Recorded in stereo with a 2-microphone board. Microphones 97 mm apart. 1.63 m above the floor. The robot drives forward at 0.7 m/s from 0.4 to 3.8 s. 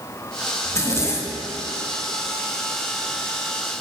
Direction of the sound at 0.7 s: 30° left (ahead or behind).